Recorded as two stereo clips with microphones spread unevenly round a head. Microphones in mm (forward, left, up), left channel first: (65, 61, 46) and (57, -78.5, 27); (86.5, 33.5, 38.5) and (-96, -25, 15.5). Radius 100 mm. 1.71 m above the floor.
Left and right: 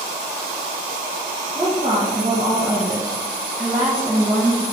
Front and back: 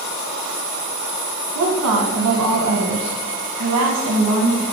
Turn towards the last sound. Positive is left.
turn(degrees=-165)